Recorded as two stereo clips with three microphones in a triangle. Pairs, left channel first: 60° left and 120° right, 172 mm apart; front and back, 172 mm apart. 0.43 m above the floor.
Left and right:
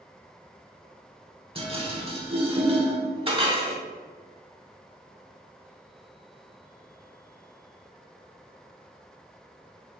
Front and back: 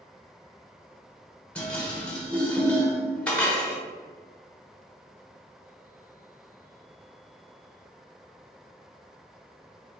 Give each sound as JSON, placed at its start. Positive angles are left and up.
{"t": 1.6, "sound": "dishes clattering", "azimuth_deg": -80, "distance_m": 0.9}